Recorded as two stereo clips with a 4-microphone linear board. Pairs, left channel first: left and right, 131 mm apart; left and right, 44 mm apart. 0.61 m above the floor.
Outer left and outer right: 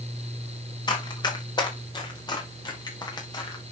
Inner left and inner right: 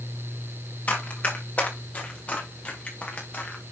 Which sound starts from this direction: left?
Running footsteps, at 0.9 s.